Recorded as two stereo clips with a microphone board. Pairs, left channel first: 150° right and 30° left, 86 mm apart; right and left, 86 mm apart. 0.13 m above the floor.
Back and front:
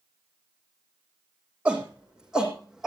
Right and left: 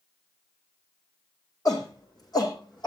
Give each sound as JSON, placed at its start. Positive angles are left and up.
{"t": 1.6, "sound": "a shout", "azimuth_deg": -45, "distance_m": 7.5}